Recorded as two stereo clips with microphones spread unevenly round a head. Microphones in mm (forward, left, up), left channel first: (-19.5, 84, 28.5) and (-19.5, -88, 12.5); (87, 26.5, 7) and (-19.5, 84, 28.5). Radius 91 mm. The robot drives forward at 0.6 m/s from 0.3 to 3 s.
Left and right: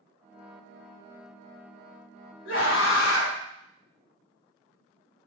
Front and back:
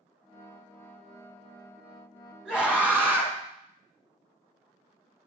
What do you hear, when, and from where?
2.5 s a scream: 70° left, 2 m; by 3.4 s 80° left, 2.0 m